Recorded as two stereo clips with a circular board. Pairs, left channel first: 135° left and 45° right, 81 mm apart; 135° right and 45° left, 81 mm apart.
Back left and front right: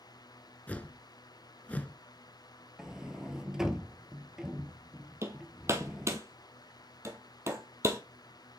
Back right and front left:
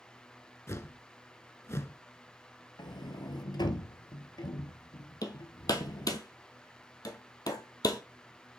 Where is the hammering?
100° right, 1.3 m.